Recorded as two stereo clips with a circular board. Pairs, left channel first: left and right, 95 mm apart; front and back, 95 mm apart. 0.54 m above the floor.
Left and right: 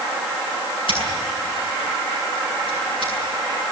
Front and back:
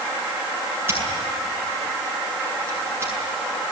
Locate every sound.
0.9 s scissors: 115° left, 8 m